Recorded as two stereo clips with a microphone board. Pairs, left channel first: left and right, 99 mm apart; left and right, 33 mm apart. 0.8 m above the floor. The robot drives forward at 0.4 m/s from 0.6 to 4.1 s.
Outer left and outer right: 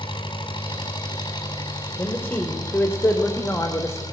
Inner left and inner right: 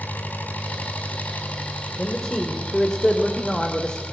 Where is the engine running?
55° left (ahead or behind), 5 m; by 4.1 s 45° left (ahead or behind), 5.5 m.